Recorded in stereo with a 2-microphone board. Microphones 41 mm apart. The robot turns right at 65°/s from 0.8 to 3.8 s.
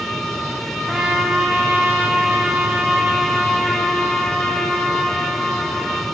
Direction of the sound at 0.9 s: 160° right.